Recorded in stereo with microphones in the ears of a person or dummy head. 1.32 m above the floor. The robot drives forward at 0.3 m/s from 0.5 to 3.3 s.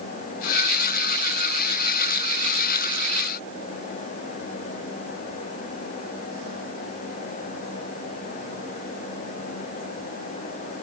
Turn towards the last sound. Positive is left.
No sound to turn to.